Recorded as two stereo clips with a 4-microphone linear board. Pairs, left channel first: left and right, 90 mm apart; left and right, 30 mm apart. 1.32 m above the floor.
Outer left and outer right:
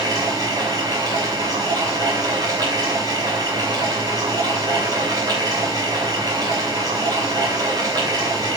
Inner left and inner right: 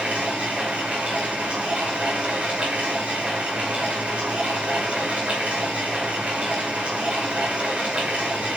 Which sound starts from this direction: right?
Running water, at 0.0 s.